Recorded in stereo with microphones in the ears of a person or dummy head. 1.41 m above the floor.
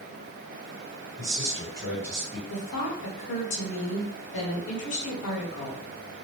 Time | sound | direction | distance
1.2 | a man speaking | 10° right (ahead or behind) | 1.3 m
2.5 | a woman speaking | 65° left (ahead or behind) | 1.0 m